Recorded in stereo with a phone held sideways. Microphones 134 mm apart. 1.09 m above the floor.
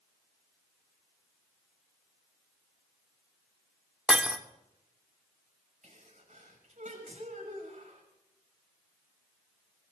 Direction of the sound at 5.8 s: 70° right (ahead or behind).